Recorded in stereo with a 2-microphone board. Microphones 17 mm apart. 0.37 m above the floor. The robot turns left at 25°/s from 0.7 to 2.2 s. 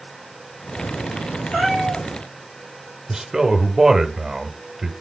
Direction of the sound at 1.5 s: 85° left.